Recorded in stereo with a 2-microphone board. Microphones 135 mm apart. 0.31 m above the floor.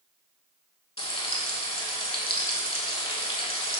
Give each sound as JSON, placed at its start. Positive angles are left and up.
{"t": 1.0, "sound": "frying", "side_deg": 45, "distance_m": 0.5}